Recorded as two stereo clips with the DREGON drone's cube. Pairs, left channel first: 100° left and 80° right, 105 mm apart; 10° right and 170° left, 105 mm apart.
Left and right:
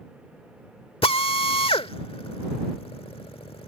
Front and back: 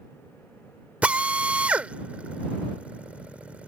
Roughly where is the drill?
Left.